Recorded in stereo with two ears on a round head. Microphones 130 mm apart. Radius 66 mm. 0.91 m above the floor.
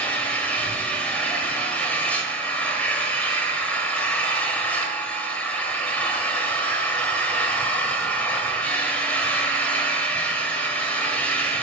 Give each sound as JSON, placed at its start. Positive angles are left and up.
{"t": 0.0, "sound": "an engine running", "side_deg": 10, "distance_m": 2.0}